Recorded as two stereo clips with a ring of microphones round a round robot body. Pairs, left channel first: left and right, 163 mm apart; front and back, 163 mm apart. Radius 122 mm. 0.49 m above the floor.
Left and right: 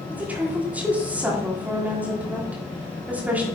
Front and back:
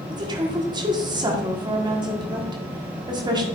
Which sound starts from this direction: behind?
A woman speaking, at 0.1 s.